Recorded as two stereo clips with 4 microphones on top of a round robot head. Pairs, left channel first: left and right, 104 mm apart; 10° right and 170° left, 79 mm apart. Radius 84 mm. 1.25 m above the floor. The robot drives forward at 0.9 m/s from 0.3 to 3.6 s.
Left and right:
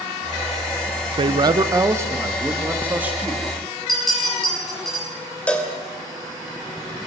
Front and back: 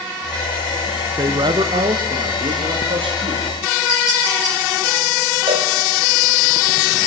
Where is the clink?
Straight behind, 10 m.